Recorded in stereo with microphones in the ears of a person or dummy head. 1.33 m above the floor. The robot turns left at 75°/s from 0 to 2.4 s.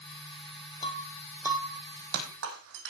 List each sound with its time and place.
0.8 s breaking glass: 30° left (ahead or behind), 3 m; by 2.9 s 65° right (ahead or behind), 3 m